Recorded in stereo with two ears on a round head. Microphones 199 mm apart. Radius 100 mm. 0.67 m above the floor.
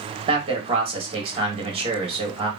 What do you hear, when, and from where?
0.3 s a man speaking: 25° right (ahead or behind), 1.5 m